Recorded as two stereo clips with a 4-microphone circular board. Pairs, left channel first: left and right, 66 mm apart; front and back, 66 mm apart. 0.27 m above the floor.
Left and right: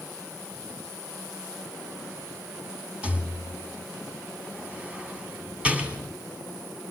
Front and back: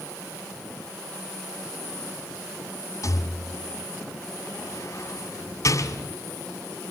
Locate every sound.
3.0 s a rattle: 25° right, 2 m